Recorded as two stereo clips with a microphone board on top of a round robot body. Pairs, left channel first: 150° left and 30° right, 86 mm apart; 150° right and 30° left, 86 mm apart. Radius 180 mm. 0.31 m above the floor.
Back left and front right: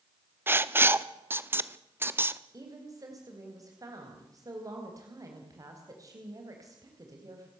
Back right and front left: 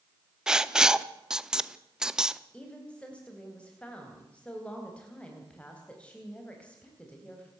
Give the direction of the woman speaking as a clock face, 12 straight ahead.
2 o'clock.